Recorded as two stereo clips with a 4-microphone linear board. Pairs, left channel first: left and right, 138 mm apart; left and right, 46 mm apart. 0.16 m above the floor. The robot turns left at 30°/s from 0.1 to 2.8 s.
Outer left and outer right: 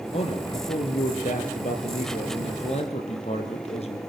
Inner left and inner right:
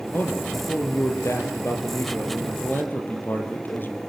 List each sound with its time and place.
0.1 s a man speaking: 130° left, 4 m; by 4.0 s 50° left, 4 m